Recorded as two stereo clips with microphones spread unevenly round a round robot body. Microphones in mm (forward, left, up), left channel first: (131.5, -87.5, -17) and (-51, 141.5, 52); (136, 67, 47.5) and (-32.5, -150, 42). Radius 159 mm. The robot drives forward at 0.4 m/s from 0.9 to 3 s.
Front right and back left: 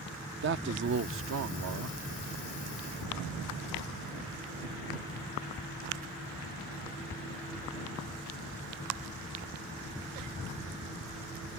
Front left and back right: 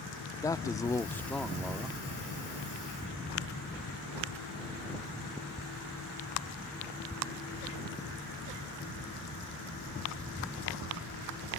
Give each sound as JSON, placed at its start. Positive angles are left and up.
{"t": 0.4, "sound": "a man speaking", "azimuth_deg": 115}